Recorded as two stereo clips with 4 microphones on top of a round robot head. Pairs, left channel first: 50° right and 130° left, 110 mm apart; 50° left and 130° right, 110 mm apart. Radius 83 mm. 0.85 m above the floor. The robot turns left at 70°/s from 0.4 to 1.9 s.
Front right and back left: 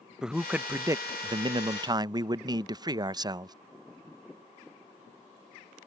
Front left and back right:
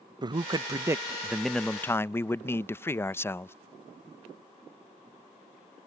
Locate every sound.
0.2 s a man speaking: 150° right; by 3.5 s 105° left